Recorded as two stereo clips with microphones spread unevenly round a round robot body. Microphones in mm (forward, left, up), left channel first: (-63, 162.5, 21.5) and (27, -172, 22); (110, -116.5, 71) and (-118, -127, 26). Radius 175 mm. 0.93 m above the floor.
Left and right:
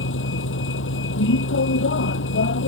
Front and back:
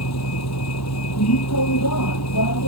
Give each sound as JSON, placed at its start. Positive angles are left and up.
{"t": 0.0, "sound": "a vehicle", "azimuth_deg": 45}